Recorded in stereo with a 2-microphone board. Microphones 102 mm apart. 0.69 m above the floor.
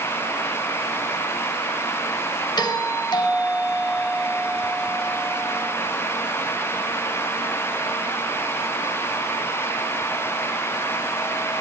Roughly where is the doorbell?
Left.